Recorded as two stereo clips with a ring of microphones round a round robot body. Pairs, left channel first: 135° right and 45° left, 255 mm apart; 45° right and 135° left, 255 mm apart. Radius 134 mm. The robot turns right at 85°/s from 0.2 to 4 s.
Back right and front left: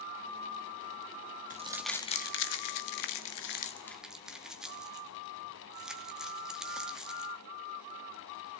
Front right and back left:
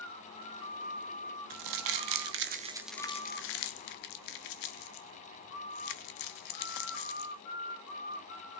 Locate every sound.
1.5 s crumpling: 105° left, 0.7 m; by 7.3 s 40° right, 0.7 m